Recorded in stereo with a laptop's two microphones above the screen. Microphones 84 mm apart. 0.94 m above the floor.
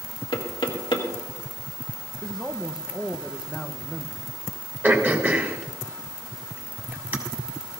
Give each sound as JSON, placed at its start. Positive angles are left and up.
{"t": 0.3, "sound": "knocking", "side_deg": 75, "distance_m": 1.8}
{"t": 2.2, "sound": "a man speaking", "side_deg": 0, "distance_m": 0.6}
{"t": 4.8, "sound": "throat clearing", "side_deg": -25, "distance_m": 3.0}